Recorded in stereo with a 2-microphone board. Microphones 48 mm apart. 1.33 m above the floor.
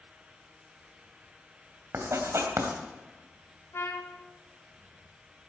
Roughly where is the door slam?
I don't hear a door slam.